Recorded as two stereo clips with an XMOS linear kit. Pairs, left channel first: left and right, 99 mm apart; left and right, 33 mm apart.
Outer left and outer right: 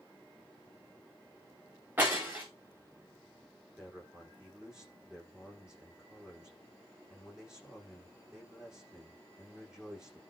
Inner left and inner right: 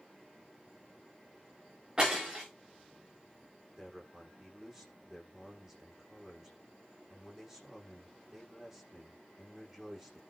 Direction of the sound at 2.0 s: 20° right (ahead or behind).